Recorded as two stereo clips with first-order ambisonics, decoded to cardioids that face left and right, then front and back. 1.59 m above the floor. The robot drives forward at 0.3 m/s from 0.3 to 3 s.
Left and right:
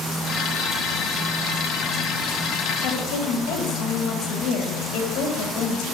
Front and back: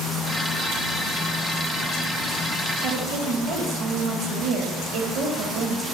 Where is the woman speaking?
140° left, 1.8 m.